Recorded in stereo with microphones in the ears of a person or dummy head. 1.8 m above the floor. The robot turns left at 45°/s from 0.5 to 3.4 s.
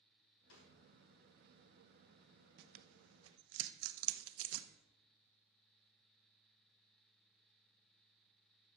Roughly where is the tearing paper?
Right.